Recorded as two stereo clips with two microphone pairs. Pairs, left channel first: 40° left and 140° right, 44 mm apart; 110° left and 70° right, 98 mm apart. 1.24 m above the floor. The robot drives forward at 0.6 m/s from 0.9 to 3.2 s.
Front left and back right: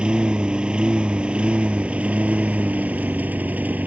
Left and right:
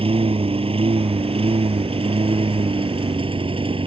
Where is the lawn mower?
70° right; by 3.9 s 90° right.